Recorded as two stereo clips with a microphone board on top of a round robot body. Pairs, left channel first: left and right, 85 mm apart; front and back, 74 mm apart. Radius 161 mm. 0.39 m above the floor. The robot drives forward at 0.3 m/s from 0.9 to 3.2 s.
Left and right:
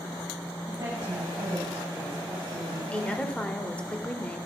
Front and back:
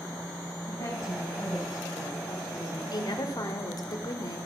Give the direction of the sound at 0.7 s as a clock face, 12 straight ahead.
1 o'clock.